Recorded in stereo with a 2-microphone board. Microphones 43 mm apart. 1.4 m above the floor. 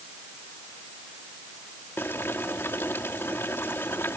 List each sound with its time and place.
2.0 s boiling: 60° left (ahead or behind)